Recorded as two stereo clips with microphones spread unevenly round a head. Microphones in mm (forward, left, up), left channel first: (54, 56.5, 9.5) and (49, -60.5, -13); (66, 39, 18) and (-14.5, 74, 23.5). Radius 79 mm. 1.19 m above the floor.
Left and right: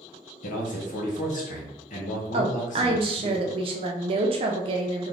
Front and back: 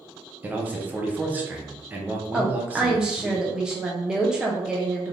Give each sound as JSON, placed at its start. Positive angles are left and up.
{"t": 0.4, "sound": "a man speaking", "azimuth_deg": 85, "distance_m": 1.0}
{"t": 2.3, "sound": "a woman speaking", "azimuth_deg": -120, "distance_m": 0.5}